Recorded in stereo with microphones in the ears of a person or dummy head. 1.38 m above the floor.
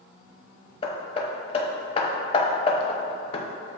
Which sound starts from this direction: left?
Hammering, at 0.8 s.